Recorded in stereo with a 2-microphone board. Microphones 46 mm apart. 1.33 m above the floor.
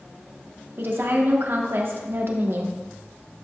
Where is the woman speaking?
60° right (ahead or behind), 1.3 m.